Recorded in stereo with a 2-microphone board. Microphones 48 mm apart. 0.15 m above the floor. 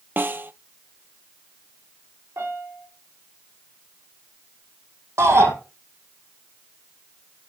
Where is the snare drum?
50° right (ahead or behind), 0.6 m.